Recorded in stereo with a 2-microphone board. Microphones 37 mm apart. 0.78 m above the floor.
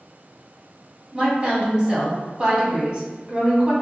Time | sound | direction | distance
1.1 | a woman speaking | 15° right (ahead or behind) | 1.4 m